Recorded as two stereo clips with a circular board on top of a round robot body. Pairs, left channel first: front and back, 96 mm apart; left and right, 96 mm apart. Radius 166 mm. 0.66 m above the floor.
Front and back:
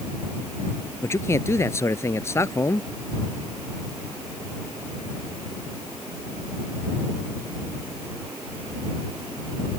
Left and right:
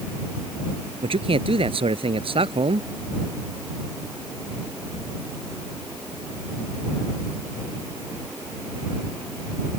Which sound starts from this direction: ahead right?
A man speaking, at 1.0 s.